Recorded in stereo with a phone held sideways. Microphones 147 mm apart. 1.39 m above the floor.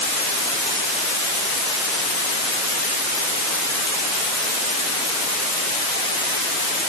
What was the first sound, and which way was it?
Only background noise.